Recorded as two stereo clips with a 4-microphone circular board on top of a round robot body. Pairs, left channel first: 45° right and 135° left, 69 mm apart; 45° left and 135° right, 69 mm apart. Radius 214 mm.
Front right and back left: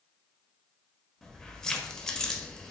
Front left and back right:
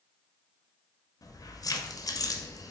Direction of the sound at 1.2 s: 35° left.